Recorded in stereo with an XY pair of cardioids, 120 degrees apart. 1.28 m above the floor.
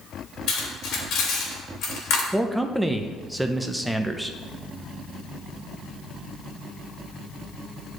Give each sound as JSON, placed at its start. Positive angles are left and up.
{"t": 0.5, "sound": "cutlery clinking", "azimuth_deg": 65, "distance_m": 2.5}
{"t": 2.3, "sound": "a man speaking", "azimuth_deg": -10, "distance_m": 0.8}